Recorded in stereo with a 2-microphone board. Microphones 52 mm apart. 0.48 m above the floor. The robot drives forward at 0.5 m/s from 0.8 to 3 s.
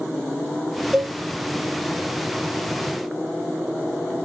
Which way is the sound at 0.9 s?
20° right (ahead or behind).